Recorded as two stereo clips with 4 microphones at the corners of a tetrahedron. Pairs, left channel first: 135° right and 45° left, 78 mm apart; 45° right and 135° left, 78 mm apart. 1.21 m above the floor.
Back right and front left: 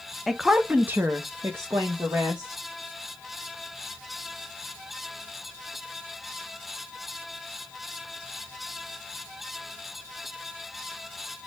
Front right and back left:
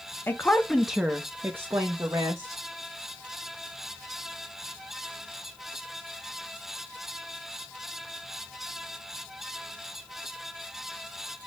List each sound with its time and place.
0.3 s a woman speaking: 40° right, 0.5 m; by 2.6 s 95° left, 1.1 m